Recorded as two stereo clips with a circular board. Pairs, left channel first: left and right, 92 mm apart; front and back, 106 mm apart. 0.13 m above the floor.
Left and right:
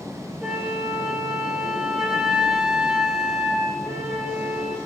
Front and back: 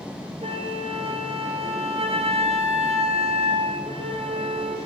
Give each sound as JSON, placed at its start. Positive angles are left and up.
{"t": 0.4, "sound": "a flute", "azimuth_deg": -175, "distance_m": 2.5}